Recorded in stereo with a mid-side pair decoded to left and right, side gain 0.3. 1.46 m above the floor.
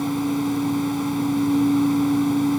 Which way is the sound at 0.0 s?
Straight ahead.